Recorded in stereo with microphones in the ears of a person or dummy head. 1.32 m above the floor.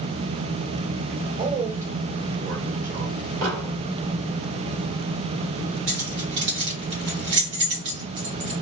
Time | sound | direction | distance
1.4 | a man speaking | 45° right (ahead or behind) | 1.5 m
3.4 | an explosion | 55° right (ahead or behind) | 1.6 m
5.9 | keys jangling | 70° right (ahead or behind) | 1.2 m